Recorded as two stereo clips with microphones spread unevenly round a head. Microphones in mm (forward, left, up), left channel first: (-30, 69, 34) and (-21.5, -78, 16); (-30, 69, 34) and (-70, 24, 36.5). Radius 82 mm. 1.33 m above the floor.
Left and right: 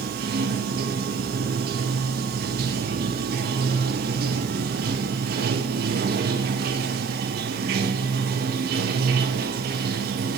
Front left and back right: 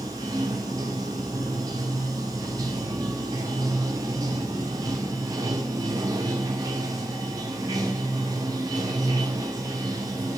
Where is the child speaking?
I don't hear a child speaking.